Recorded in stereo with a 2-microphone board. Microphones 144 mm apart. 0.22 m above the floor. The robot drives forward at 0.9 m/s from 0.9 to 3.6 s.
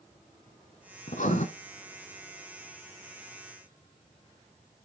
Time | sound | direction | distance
1.1 | writing | 60° left (ahead or behind) | 1.3 m